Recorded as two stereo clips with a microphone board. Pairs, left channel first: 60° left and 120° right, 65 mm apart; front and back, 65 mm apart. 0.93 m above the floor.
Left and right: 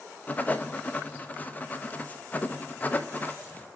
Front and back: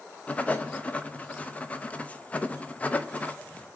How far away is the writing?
About 0.5 m.